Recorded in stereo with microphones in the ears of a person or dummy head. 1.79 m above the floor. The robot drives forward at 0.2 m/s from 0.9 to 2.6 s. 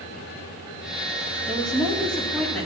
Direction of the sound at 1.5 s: 5° left (ahead or behind).